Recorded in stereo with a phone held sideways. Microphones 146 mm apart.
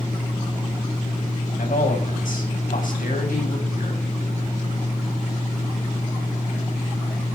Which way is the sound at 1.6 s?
70° left (ahead or behind).